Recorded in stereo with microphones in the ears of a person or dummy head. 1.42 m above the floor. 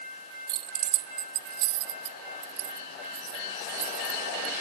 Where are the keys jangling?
25° right (ahead or behind); by 4.5 s 80° right.